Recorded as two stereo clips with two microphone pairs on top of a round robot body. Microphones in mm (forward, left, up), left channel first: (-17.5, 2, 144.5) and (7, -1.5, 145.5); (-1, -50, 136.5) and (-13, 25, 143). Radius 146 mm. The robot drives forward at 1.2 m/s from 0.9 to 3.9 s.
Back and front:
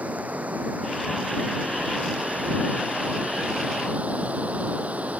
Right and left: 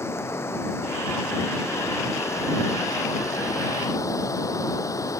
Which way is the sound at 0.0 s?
25° right.